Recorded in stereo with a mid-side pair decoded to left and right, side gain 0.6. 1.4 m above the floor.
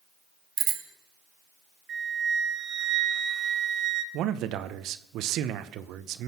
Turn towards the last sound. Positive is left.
turn(degrees=-65)